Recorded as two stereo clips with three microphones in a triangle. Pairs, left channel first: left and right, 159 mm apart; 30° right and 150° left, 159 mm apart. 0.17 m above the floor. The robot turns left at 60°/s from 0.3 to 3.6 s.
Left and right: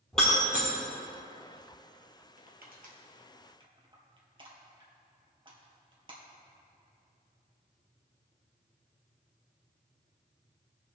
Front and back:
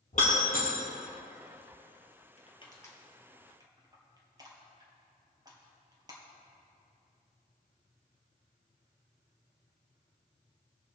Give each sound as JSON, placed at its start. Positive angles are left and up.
{"t": 0.1, "sound": "breaking glass", "azimuth_deg": 5, "distance_m": 3.0}
{"t": 2.4, "sound": "crushing", "azimuth_deg": -70, "distance_m": 2.0}